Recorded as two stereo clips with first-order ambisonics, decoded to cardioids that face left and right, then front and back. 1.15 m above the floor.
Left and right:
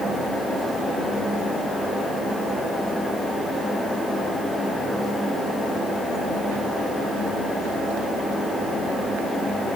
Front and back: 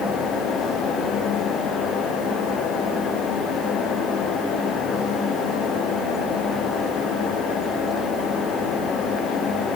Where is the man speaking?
No man speaking in this recording.